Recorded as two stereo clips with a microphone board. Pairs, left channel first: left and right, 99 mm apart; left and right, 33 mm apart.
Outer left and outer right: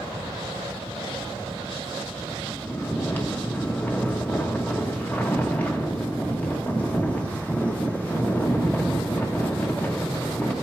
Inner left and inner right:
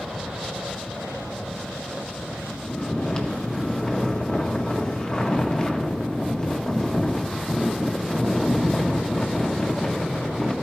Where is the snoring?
20° left (ahead or behind), 1.0 m.